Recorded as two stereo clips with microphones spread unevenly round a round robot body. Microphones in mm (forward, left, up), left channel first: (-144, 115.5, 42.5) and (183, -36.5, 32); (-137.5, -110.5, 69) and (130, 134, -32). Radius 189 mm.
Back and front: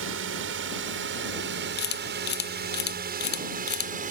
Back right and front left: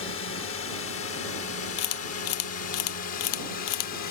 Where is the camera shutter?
140° right.